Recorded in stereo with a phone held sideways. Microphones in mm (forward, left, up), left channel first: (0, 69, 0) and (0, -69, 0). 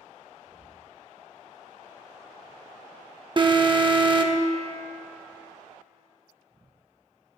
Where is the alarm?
35° right (ahead or behind), 0.6 m.